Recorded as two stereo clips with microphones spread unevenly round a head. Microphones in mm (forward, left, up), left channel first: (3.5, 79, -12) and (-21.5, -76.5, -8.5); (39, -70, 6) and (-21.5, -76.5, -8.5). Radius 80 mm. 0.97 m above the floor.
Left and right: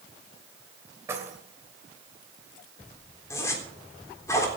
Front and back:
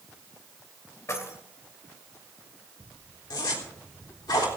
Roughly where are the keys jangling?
Ahead right.